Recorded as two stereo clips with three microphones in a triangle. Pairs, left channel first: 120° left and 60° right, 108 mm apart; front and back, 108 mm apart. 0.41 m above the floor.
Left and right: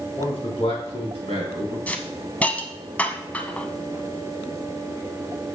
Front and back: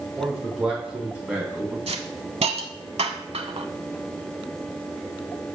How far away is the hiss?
About 0.7 m.